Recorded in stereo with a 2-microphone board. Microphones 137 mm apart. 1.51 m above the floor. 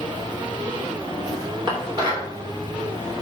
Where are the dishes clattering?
35° right (ahead or behind), 3 m.